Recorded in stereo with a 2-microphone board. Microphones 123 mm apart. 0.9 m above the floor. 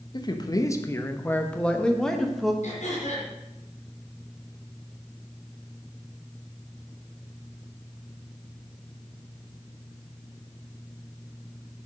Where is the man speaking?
40° left (ahead or behind), 1.1 m; by 2.5 s centre (ahead or behind), 1.9 m.